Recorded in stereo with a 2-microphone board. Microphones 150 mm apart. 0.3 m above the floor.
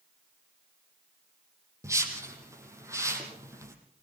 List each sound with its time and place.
1.8 s a whoosh: 20° right (ahead or behind), 4 m